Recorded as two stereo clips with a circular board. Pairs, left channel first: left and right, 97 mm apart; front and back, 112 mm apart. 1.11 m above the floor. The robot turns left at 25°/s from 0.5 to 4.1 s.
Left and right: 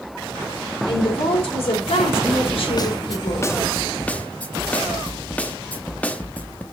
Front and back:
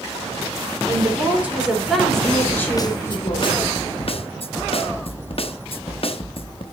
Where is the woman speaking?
115° left, 3.5 m; by 3.5 s 55° left, 3.5 m.